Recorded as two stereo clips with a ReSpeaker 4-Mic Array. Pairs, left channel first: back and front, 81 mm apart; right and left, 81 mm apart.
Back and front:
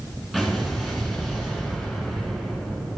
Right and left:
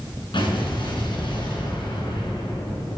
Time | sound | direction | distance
0.3 | an explosion | 80° right | 3 m